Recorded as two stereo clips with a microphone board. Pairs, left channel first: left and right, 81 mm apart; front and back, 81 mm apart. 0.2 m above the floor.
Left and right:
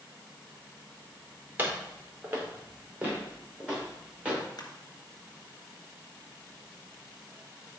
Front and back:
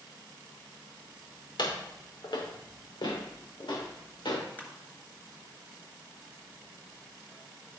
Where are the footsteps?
25° right, 3.5 m; by 4.4 s 15° right, 6 m.